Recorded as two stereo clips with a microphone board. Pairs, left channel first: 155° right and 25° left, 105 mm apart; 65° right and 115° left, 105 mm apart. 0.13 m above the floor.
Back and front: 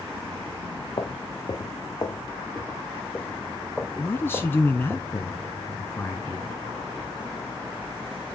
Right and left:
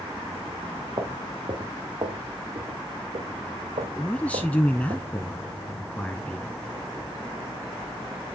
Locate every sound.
1.0 s footsteps: 160° left, 2 m; by 5.0 s 90° left, 1.5 m
4.0 s a man speaking: 125° right, 1.2 m